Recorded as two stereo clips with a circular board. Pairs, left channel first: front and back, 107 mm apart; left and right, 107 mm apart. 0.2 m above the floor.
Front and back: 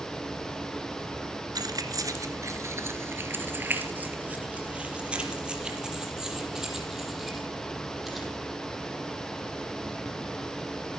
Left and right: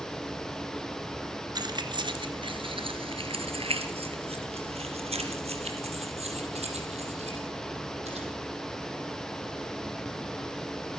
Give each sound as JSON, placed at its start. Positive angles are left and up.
{"t": 1.6, "sound": "keys jangling", "azimuth_deg": -135, "distance_m": 2.0}